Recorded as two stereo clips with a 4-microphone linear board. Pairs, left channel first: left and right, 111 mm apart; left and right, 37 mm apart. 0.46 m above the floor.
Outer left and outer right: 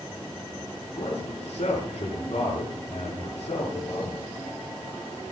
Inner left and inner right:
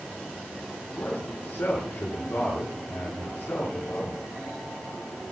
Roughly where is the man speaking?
Left.